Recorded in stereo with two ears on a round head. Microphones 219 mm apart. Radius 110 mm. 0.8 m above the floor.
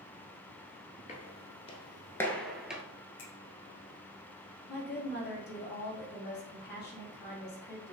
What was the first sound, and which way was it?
Footsteps, 30° left (ahead or behind).